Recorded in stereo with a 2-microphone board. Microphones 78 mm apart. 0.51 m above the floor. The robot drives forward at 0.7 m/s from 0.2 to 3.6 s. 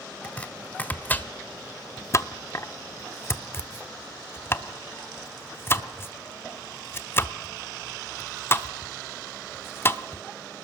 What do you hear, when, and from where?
0.2 s chopping: 15° left (ahead or behind), 1.9 m; by 10.2 s 30° left (ahead or behind), 1.0 m